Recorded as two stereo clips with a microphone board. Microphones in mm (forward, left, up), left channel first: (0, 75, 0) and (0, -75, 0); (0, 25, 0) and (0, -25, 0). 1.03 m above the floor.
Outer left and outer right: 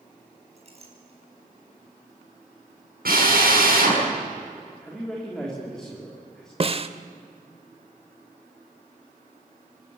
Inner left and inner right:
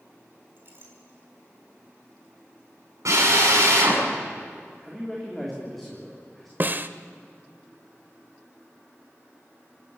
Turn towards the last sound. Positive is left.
turn(degrees=-40)  # may be behind; listen again after turning